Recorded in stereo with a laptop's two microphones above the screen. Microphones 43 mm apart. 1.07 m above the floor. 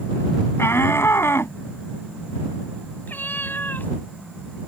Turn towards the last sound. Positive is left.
turn(degrees=50)  # may be behind; listen again after turning